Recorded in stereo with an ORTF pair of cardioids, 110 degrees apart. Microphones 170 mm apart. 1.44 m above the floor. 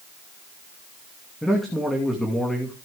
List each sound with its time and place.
1.4 s a man speaking: straight ahead, 2.5 m